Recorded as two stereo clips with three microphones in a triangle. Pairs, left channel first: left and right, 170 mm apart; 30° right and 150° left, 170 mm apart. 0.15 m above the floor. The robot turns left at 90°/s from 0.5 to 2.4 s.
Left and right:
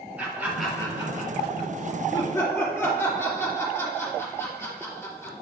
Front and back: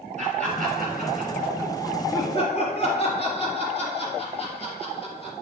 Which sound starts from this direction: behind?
Laughter, at 0.2 s.